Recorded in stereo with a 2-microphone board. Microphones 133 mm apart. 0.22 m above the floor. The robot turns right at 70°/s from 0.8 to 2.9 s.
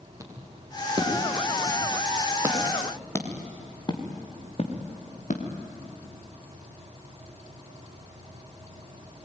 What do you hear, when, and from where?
0.2 s footsteps: 25° right (ahead or behind), 7 m; by 5.4 s 65° left (ahead or behind), 4 m